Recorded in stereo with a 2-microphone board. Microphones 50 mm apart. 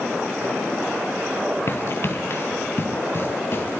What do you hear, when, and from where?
1.7 s running footsteps: 50° left (ahead or behind), 1.3 m; by 3.8 s 45° left (ahead or behind), 3 m